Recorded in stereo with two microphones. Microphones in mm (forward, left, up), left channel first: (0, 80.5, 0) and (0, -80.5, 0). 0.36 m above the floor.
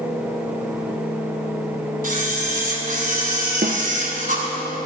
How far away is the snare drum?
About 1.6 m.